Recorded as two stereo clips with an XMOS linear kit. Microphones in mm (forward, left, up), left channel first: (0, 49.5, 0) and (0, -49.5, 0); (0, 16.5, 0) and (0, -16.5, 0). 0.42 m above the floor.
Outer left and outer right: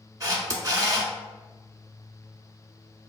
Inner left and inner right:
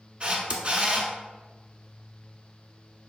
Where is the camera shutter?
40° right (ahead or behind), 0.6 m.